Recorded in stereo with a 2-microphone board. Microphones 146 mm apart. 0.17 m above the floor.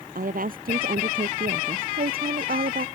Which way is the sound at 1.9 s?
80° right.